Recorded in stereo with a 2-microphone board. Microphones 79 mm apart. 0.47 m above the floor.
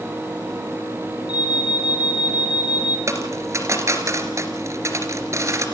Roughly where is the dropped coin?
Right.